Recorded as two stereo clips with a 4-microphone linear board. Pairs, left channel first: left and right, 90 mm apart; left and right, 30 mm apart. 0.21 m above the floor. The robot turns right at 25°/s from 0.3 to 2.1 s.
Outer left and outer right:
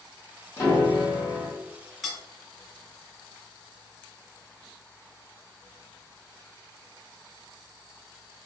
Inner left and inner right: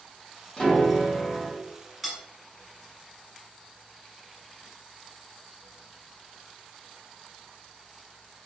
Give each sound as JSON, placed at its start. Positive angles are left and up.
{"t": 0.6, "sound": "a piano", "side_deg": 25, "distance_m": 1.8}
{"t": 2.0, "sound": "cutlery clinking", "side_deg": 0, "distance_m": 0.8}